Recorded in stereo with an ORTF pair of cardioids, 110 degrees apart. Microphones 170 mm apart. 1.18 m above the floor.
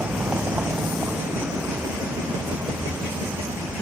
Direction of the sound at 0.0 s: 10° right.